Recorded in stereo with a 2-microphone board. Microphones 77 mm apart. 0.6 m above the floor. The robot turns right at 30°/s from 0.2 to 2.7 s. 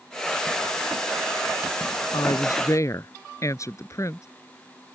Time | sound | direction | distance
2.1 | a woman speaking | 60° left (ahead or behind) | ?